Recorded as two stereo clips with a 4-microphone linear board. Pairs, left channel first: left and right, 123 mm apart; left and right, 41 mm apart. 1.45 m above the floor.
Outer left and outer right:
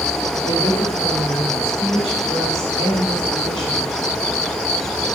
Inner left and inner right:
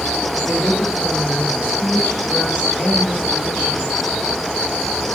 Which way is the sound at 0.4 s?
30° left (ahead or behind).